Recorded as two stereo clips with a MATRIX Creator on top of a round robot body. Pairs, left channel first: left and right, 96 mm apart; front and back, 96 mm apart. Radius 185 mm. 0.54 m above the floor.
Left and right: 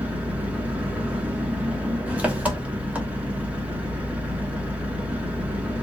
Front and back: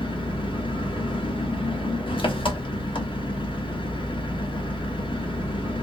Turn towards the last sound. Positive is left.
turn(degrees=-15)